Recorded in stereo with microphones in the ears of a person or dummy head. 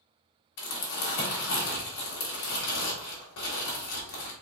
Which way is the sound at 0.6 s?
60° left (ahead or behind).